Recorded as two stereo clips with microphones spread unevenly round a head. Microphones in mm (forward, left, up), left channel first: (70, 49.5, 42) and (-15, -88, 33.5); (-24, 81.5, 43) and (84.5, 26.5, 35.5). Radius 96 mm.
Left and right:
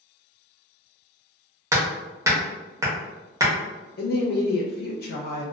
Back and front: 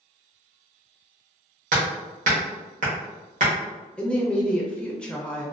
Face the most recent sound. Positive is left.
turn(degrees=70)